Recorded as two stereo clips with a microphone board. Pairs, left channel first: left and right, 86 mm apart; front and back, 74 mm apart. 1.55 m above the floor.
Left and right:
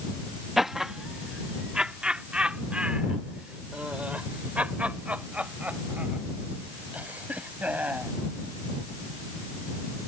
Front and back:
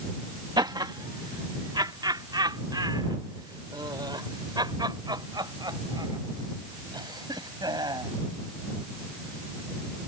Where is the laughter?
175° right; by 8.1 s 165° right.